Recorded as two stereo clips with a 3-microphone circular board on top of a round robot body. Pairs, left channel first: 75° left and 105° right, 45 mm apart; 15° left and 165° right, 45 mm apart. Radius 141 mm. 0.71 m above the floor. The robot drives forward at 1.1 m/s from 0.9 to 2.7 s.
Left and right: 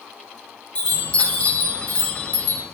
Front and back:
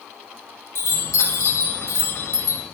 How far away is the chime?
About 4 m.